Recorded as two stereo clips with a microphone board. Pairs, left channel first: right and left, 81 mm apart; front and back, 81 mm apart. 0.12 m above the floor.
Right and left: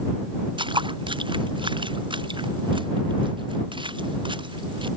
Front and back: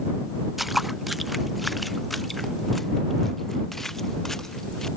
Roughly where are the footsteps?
Left.